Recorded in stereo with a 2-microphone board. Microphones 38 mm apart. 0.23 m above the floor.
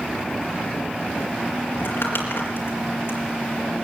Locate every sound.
1.7 s crumpling: 75° left (ahead or behind), 4.5 m